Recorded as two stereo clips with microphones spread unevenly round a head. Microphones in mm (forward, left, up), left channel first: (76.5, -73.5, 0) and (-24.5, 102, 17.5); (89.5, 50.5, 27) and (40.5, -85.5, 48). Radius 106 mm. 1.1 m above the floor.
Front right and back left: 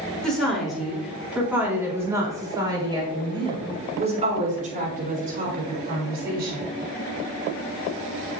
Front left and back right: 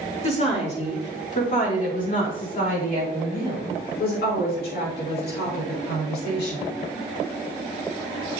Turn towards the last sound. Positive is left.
turn(degrees=80)